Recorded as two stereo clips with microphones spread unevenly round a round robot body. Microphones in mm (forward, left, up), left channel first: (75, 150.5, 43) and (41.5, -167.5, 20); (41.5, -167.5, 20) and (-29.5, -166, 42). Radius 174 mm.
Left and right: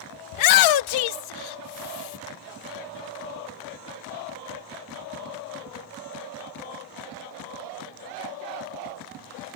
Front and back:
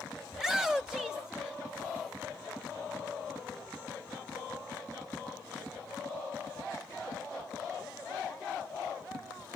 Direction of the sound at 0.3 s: 80° left.